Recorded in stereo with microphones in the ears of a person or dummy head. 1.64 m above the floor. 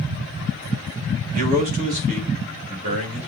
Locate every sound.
1.3 s a man speaking: 50° right (ahead or behind), 2.5 m; by 3.3 s 40° right (ahead or behind), 3.5 m